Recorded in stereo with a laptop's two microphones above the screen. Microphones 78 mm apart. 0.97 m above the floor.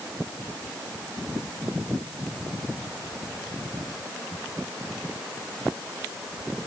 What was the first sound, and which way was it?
Only background noise.